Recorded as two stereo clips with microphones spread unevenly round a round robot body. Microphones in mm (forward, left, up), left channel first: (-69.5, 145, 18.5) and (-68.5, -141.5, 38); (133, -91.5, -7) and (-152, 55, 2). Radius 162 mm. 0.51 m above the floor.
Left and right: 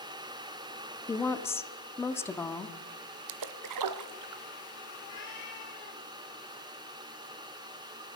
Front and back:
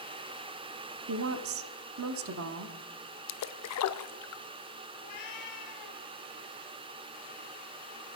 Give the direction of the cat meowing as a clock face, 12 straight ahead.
12 o'clock.